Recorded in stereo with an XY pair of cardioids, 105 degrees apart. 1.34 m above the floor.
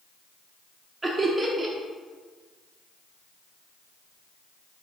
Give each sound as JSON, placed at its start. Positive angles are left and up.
{"t": 1.0, "sound": "laughter", "azimuth_deg": -20, "distance_m": 0.7}